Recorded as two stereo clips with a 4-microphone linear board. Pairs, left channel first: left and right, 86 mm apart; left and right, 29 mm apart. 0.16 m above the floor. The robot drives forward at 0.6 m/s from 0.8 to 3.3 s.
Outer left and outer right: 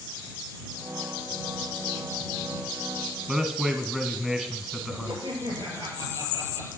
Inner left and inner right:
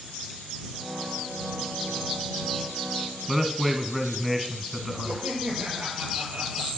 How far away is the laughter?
About 4.5 m.